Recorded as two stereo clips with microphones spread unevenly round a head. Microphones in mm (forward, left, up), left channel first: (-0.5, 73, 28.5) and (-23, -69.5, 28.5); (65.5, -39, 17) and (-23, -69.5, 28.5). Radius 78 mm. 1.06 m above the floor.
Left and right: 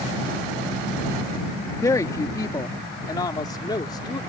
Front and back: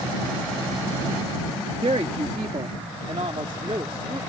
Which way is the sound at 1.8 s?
150° left.